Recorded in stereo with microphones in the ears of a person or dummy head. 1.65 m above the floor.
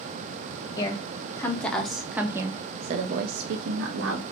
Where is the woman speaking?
25° left (ahead or behind), 1.4 m; by 4.2 s 85° right, 1.0 m.